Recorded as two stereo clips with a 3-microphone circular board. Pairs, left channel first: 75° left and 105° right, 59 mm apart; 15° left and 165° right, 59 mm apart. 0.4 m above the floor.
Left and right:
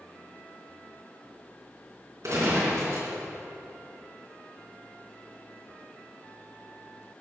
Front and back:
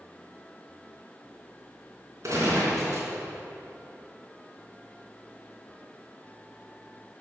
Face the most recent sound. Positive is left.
turn(degrees=-135)